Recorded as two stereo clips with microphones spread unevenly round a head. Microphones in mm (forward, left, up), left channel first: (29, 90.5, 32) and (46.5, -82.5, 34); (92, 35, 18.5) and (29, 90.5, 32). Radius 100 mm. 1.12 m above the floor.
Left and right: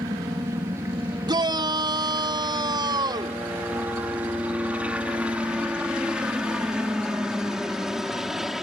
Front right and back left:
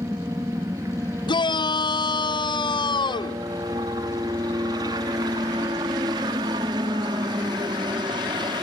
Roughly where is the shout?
Ahead.